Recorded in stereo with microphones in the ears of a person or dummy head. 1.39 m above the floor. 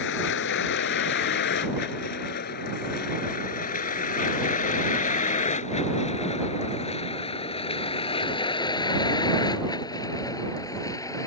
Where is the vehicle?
60° left (ahead or behind); by 11.3 s 15° left (ahead or behind).